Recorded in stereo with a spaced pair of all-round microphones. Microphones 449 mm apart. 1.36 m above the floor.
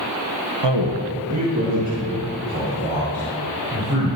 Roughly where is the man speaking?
Right.